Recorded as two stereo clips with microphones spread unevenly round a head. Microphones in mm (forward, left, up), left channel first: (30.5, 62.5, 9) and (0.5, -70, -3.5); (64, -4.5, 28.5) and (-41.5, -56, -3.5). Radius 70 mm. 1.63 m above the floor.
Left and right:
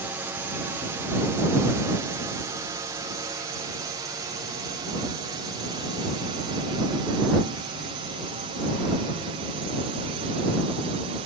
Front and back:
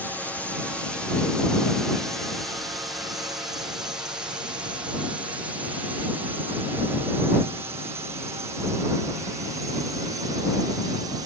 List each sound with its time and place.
0.0 s a drone: 70° right; by 11.3 s 135° right